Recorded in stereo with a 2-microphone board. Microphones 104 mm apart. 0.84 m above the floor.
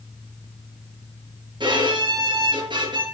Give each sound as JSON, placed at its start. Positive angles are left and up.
{"t": 1.6, "sound": "a violin", "side_deg": -45, "distance_m": 4.5}